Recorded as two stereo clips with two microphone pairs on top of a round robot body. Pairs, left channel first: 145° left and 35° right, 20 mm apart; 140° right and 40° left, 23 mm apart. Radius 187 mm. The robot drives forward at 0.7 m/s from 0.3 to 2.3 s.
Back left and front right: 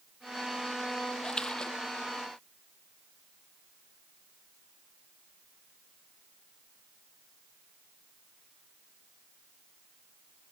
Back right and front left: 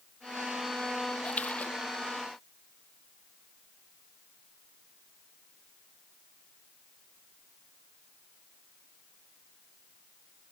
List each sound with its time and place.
1.2 s a splash: 160° right